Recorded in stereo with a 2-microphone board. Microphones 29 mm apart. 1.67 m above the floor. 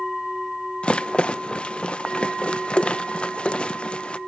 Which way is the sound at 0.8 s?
40° left (ahead or behind).